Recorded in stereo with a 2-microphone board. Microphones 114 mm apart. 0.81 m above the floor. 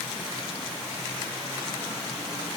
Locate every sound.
Only background noise.